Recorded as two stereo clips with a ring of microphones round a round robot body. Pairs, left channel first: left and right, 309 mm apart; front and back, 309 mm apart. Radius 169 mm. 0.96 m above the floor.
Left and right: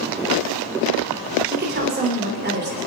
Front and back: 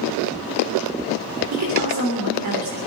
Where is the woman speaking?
145° right, 3 m.